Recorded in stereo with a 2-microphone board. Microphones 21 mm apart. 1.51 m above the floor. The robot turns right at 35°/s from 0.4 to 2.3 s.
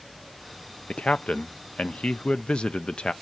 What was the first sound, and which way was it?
A man speaking, 75° left.